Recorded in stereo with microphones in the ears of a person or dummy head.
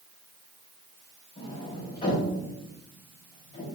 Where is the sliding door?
20° left (ahead or behind), 5 m.